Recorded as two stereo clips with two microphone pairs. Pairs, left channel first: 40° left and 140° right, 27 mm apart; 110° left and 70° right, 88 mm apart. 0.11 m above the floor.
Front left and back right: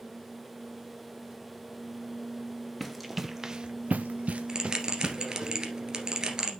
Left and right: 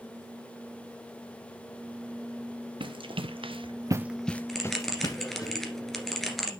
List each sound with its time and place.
2.8 s running footsteps: 55° right, 1.6 m; by 5.5 s 155° left, 2 m
4.5 s a bell: 170° right, 1.7 m